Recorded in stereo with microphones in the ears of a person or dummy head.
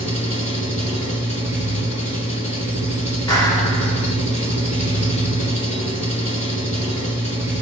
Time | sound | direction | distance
0.0 | an engine running | 35° left (ahead or behind) | 1.7 m
3.3 | a clap | 20° left (ahead or behind) | 2.5 m